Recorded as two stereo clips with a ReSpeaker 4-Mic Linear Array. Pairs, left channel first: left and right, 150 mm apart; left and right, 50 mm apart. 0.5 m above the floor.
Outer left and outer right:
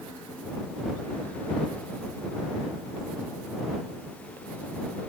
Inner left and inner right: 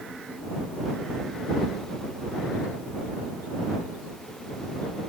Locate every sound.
Only background noise.